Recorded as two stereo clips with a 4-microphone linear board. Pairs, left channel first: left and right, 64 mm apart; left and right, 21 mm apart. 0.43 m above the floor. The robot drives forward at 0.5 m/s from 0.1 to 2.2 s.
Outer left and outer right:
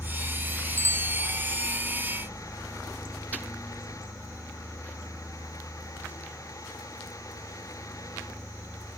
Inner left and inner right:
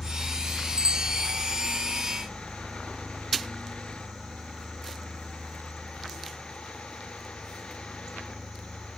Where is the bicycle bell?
40° right (ahead or behind).